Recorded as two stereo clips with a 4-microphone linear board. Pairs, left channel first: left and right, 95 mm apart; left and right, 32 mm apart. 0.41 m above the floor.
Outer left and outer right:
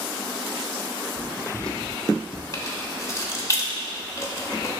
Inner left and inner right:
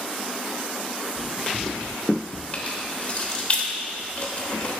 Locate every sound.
1.2 s footsteps: 15° right (ahead or behind), 1.1 m; by 2.4 s 60° left (ahead or behind), 0.9 m
2.5 s keys jangling: 35° left (ahead or behind), 0.9 m